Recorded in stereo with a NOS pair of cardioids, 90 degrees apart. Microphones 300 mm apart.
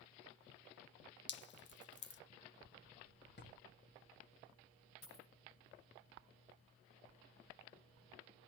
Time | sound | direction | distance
1.3 | dripping | 40° left | 0.6 m
3.4 | a drawer | 35° left | 1.6 m
5.0 | a dropped coin | 65° left | 3 m